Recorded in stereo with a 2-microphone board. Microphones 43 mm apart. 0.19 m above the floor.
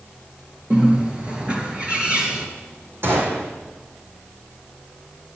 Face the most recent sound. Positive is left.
turn(degrees=-60)  # may be behind; listen again after turning